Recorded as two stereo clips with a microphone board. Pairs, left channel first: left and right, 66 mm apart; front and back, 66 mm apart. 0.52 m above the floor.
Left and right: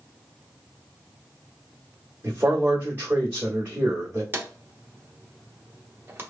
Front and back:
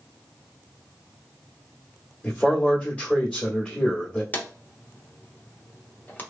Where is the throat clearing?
I don't hear throat clearing.